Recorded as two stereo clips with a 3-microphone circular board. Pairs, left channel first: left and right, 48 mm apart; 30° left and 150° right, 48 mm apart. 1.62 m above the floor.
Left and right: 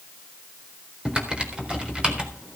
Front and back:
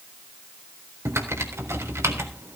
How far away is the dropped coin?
No dropped coin in this recording.